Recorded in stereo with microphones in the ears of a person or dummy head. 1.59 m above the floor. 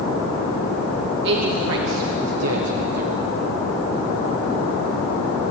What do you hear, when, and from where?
1.2 s a man speaking: 65° right (ahead or behind), 3 m; by 3.1 s 35° right (ahead or behind), 1.4 m